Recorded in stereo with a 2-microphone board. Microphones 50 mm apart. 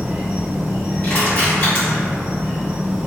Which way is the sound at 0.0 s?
20° right (ahead or behind).